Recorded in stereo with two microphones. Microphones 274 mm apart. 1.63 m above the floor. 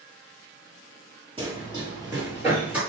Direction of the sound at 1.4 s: 20° right (ahead or behind).